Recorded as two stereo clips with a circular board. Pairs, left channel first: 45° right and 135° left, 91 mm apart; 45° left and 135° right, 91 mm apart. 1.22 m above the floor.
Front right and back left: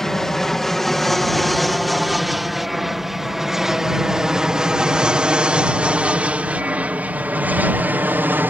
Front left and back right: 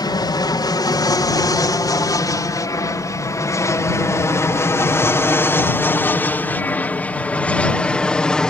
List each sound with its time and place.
0.0 s an aircraft: 40° left; by 8.5 s 115° left